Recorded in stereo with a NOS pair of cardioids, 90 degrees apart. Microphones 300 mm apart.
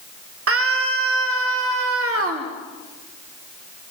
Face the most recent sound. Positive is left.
turn(degrees=-45)